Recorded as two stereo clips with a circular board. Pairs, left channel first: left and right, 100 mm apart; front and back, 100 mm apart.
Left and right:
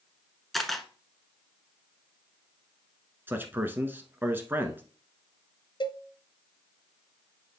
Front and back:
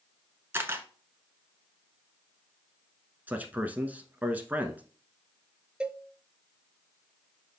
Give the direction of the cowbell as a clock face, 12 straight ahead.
9 o'clock.